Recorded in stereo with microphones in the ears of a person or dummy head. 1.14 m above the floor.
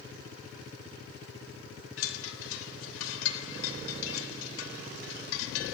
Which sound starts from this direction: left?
A chime, at 2.0 s.